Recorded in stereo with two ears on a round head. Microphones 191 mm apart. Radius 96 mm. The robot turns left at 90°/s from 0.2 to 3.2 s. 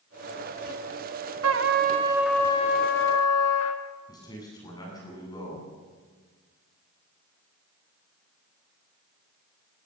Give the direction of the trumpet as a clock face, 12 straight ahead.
3 o'clock.